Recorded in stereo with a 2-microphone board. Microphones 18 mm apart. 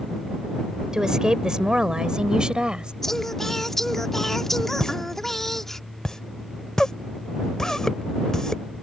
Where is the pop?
35° left (ahead or behind).